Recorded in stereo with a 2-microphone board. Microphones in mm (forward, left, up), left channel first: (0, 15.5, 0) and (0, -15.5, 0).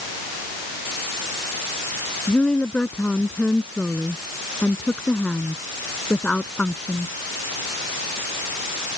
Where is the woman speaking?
35° left (ahead or behind).